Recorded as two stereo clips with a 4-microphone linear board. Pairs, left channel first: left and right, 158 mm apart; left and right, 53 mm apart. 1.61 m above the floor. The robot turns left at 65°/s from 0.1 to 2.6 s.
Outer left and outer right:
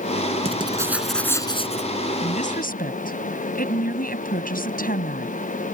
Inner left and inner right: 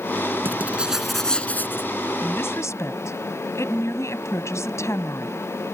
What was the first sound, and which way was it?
Writing, 140° right.